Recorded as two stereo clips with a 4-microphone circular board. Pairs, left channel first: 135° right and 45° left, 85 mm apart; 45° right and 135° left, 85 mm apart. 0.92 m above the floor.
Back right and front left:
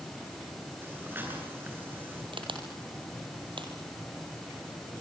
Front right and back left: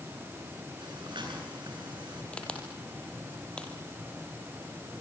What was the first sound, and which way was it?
Breathing, 110° left.